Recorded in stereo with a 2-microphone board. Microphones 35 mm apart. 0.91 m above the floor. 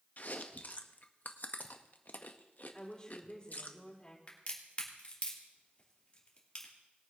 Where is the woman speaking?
25° left (ahead or behind), 4.5 m.